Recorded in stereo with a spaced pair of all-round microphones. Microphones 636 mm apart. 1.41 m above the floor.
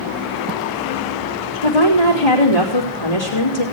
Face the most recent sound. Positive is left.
turn(degrees=65)  # may be behind; listen again after turning